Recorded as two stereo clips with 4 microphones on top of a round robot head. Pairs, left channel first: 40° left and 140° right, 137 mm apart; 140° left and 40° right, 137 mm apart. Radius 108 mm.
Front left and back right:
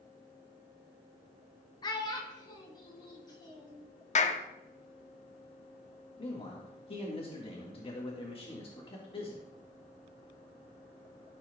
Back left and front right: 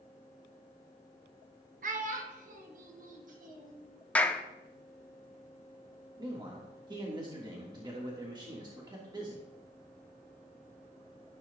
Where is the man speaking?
5° left, 1.5 m.